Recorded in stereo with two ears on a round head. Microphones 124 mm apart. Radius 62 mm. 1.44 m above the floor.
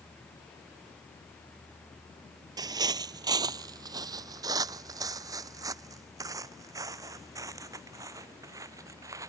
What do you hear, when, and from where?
2.6 s footsteps: 30° right (ahead or behind); by 9.3 s 25° right (ahead or behind)